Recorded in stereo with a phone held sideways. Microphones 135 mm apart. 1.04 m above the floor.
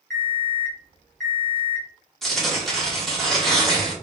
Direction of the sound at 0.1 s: 5° left (ahead or behind).